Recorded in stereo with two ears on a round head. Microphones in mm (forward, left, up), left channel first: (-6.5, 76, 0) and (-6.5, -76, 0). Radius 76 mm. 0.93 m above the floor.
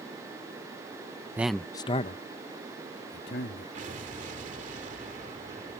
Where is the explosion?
50° right (ahead or behind).